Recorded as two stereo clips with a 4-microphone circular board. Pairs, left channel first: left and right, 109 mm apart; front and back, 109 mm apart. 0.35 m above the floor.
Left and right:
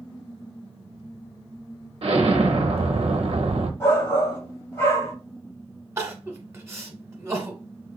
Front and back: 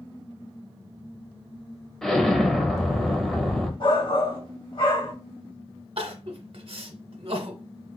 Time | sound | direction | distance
2.0 | an explosion | 85° right | 0.8 m
3.8 | a shout | 25° left | 1.9 m
6.0 | crying | 155° right | 0.9 m